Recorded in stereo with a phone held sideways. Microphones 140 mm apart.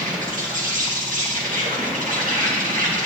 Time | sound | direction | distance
0.0 | an insect | 70° right (ahead or behind) | 2.0 m